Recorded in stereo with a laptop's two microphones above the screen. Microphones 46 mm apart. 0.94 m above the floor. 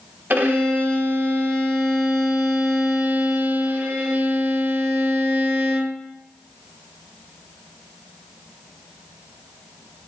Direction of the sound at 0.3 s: 40° right (ahead or behind).